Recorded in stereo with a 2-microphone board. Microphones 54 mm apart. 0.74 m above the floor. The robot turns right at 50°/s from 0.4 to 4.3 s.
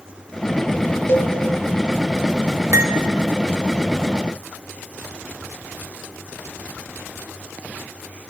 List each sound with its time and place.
1.1 s a cowbell: 40° left (ahead or behind), 1.0 m; by 1.3 s 50° left (ahead or behind), 1.0 m
2.7 s cutlery clinking: 75° right (ahead or behind), 1.0 m; by 2.9 s 65° right (ahead or behind), 1.0 m